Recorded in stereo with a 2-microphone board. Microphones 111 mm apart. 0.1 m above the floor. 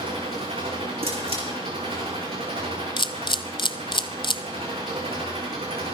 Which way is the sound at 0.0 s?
70° right (ahead or behind).